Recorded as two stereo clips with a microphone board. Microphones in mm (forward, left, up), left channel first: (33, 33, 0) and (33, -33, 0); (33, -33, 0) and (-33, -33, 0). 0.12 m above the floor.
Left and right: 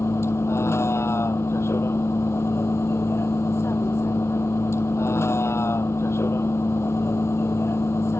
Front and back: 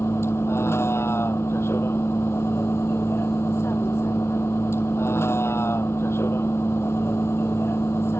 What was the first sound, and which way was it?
A vehicle, 45° left.